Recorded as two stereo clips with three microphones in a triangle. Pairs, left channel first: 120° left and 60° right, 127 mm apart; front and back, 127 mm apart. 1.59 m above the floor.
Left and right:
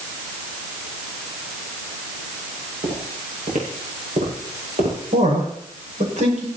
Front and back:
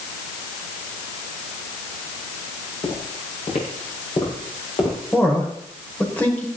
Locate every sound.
2.8 s footsteps: 35° right, 7.5 m; by 5.0 s 50° right, 8 m
5.1 s a man speaking: 75° right, 6 m